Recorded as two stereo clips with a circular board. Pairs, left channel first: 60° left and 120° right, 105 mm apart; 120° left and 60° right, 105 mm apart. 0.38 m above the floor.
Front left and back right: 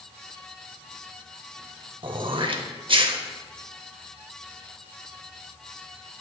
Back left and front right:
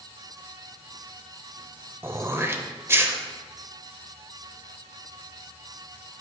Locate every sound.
2.0 s throat clearing: 120° right, 0.6 m